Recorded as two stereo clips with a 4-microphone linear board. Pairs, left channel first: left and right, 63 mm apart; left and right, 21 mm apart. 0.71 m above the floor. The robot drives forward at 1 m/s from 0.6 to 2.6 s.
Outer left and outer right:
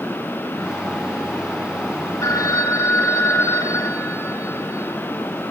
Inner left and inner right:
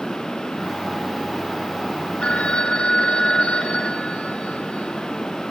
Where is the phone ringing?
70° left (ahead or behind), 1.3 m; by 5.0 s 55° left (ahead or behind), 1.5 m.